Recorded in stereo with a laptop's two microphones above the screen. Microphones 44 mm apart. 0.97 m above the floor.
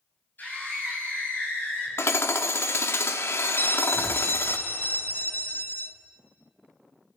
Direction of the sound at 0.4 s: 40° left (ahead or behind).